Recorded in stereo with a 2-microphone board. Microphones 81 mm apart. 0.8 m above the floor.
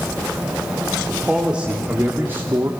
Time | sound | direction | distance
1.1 | a man speaking | 10° right (ahead or behind) | 2 m